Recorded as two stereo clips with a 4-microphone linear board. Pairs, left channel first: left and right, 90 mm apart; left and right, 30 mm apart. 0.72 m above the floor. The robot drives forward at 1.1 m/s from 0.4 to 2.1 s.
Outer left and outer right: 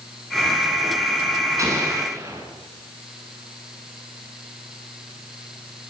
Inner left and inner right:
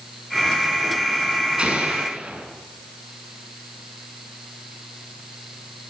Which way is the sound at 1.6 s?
35° right (ahead or behind).